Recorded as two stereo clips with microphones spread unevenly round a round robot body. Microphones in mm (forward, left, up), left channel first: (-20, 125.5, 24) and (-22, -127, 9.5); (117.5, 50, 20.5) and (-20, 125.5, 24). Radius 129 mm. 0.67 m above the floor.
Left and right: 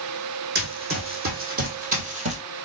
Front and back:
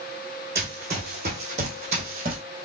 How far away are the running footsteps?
About 2.5 m.